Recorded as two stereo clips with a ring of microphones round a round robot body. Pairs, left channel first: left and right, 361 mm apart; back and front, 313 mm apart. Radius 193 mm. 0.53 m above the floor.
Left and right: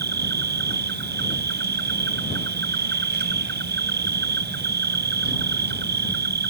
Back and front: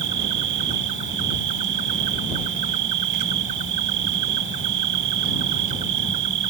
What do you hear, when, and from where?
0.0 s an insect: 25° right